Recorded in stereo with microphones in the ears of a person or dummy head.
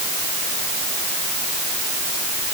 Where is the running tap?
I don't hear a running tap.